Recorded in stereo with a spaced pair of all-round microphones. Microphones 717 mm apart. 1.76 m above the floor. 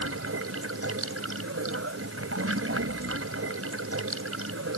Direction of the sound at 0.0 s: 20° right (ahead or behind).